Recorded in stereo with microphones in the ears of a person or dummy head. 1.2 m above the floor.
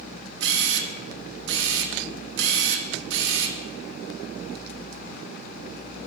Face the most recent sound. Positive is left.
turn(degrees=-65)  # may be behind; listen again after turning